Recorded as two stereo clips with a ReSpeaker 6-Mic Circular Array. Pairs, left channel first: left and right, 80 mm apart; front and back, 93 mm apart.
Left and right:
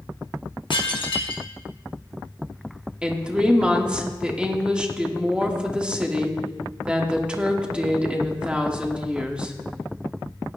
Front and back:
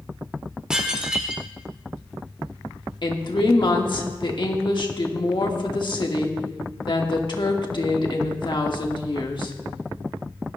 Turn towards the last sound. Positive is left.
turn(degrees=-15)